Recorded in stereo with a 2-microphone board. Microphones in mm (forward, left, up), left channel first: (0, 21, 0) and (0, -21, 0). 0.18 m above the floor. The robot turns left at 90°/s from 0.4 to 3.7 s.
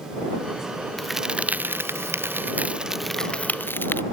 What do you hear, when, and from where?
1.0 s a crack: 5° left; by 4.0 s 120° left